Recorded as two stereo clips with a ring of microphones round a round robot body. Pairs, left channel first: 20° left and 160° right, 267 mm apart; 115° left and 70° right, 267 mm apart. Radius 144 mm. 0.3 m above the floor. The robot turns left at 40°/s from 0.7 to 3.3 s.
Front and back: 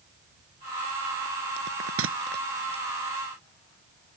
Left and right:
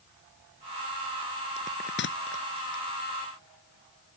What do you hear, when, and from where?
1.6 s a bell: straight behind; by 2.8 s 130° left